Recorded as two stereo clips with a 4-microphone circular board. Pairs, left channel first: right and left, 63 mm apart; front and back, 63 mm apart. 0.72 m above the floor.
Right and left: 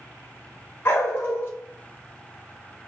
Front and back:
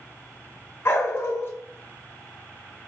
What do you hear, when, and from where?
0.8 s a dog barking: 45° right, 0.8 m